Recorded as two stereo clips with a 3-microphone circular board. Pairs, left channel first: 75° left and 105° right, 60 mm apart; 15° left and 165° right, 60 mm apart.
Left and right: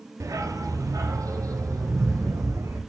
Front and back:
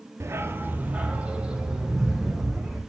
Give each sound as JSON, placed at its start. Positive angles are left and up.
{"t": 0.2, "sound": "a dog barking", "azimuth_deg": -125, "distance_m": 1.6}